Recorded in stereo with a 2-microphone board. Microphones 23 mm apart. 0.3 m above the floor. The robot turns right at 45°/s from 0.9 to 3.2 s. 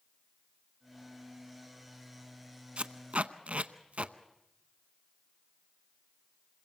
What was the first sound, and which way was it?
Tape being pulled, 60° right (ahead or behind).